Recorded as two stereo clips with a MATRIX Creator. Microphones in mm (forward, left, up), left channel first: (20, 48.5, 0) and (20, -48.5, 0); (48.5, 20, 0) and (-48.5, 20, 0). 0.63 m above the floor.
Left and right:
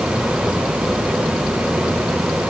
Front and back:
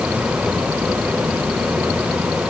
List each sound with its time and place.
Only background noise.